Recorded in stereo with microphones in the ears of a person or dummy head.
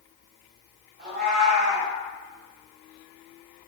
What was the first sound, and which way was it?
A cat meowing, 45° right (ahead or behind).